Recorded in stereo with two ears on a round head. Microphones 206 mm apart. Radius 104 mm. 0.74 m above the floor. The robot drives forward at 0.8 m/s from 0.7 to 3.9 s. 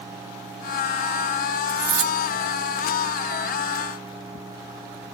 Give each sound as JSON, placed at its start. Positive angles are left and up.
{"t": 1.7, "sound": "cutlery clinking", "side_deg": -15, "distance_m": 1.0}